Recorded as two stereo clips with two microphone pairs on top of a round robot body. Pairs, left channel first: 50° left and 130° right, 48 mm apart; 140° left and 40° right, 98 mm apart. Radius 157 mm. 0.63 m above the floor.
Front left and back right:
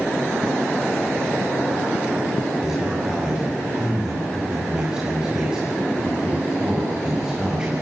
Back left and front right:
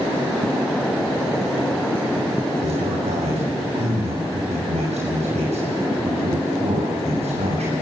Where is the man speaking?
50° right, 6.5 m.